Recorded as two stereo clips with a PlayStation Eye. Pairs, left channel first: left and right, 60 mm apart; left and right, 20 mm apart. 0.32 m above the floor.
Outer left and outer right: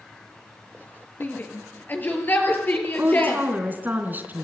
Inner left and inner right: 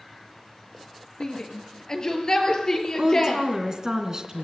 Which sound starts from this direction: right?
A woman speaking, at 3.0 s.